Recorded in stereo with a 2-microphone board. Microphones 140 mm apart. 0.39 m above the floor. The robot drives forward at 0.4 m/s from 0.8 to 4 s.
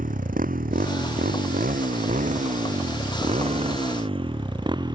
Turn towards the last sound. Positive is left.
turn(degrees=-30)  # may be behind; listen again after turning